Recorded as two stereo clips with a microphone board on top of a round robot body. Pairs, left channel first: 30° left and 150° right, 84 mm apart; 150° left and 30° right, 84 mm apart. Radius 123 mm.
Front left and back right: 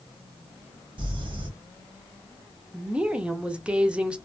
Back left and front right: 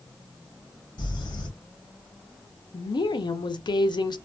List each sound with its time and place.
1.0 s crumpling: 175° right, 1.3 m
2.7 s a woman speaking: 135° left, 0.6 m